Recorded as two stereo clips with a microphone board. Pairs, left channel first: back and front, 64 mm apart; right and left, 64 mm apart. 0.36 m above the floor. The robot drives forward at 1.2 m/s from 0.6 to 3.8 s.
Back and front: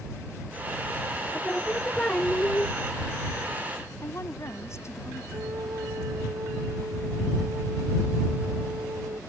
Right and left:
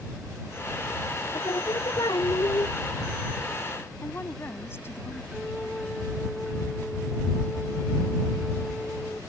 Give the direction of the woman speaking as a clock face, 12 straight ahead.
5 o'clock.